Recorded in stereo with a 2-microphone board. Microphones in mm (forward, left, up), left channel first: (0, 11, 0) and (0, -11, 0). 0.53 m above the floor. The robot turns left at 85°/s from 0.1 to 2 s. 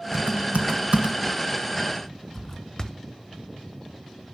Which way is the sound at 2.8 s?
35° left (ahead or behind).